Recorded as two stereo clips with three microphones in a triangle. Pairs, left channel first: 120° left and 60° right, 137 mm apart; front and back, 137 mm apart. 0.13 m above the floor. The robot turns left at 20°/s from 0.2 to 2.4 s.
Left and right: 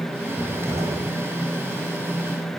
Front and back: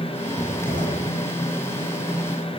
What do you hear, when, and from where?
0.4 s a cupboard door: 20° left, 5.5 m; by 1.1 s 5° left, 5.5 m